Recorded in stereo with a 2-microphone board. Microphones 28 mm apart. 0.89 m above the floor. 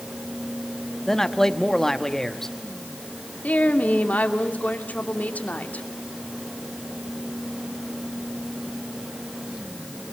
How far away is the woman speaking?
About 2.5 m.